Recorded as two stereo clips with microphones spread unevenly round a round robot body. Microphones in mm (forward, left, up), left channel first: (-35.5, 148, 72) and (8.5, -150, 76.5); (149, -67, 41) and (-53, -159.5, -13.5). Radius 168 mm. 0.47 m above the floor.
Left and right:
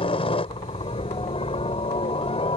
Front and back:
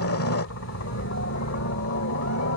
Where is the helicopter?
30° left.